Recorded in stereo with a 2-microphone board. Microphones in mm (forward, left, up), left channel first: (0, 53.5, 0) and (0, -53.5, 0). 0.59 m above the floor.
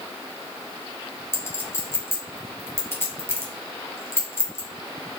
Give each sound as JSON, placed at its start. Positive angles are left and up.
{"t": 1.3, "sound": "a clink", "side_deg": 20, "distance_m": 0.8}